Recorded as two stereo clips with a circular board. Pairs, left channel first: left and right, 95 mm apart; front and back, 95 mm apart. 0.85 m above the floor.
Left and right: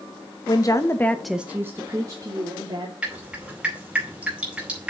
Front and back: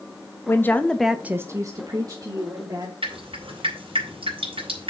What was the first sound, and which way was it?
A woman speaking, 60° left.